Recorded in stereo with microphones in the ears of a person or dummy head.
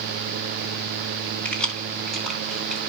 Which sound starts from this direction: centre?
Keys jangling, at 1.4 s.